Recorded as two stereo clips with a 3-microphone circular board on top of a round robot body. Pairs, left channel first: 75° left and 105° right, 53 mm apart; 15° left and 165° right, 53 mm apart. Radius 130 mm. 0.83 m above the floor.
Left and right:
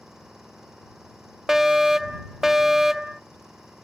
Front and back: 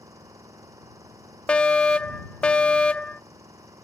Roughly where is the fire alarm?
Ahead right.